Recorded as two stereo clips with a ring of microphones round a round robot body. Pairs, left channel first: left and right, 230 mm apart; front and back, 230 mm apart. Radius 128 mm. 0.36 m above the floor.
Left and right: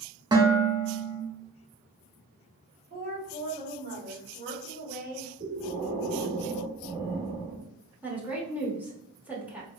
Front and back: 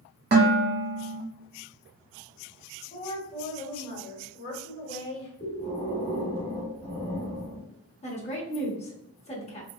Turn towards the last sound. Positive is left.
turn(degrees=-15)